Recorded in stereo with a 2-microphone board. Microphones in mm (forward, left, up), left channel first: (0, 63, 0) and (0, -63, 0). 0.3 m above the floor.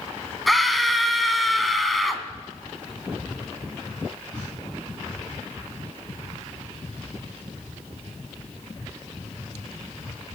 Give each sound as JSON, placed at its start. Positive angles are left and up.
{"t": 0.5, "sound": "a scream", "side_deg": 0, "distance_m": 2.0}